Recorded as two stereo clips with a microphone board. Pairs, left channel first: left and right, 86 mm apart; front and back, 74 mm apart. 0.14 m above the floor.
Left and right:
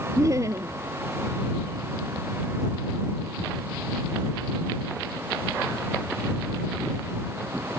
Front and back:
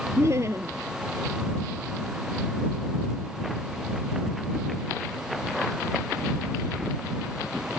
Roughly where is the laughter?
Behind right.